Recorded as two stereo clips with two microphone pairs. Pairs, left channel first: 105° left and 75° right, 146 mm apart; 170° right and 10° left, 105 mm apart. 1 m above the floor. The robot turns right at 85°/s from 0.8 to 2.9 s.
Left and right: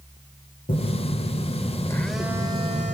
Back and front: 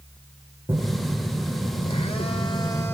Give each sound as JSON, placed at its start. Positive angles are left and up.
{"t": 0.7, "sound": "a phone buzzing", "azimuth_deg": 80, "distance_m": 1.6}